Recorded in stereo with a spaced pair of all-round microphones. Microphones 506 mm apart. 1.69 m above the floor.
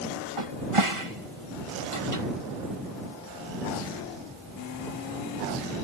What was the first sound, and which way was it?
A cupboard door, 70° right (ahead or behind).